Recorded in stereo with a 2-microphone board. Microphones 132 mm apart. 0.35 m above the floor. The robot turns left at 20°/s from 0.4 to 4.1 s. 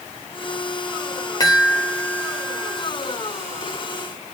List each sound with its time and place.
1.4 s a chime: 30° left (ahead or behind), 1.2 m; by 2.9 s 25° left (ahead or behind), 1.2 m